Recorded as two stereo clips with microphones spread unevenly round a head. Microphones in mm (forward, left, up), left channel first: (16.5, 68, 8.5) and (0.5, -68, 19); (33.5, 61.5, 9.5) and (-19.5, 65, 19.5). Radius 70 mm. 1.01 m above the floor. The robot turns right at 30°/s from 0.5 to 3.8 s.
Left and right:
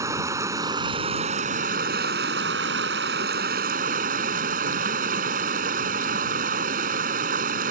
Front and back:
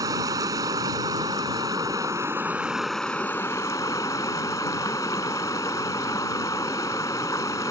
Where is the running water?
165° right; by 7.7 s 65° right.